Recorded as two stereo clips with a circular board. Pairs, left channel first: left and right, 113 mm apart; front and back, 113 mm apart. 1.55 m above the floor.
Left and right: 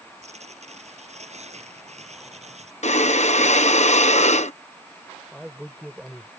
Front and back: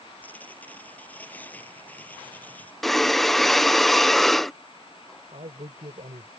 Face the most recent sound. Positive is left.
turn(degrees=-175)